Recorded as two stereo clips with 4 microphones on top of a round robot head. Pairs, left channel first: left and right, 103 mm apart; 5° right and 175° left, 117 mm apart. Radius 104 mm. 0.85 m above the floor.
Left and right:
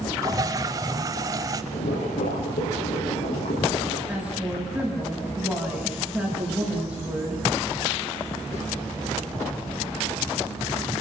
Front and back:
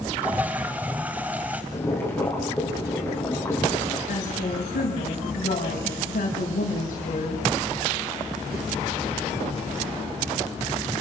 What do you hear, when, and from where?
0.2 s a toilet flushing: 110° right, 0.7 m
1.7 s boiling: 65° left, 8.5 m
4.1 s a woman speaking: 10° right, 6.5 m